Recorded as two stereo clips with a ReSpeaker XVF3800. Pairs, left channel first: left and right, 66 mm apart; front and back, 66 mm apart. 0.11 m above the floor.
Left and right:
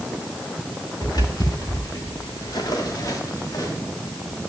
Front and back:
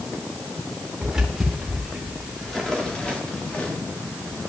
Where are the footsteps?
100° left, 3.5 m; by 3.7 s 65° left, 3 m.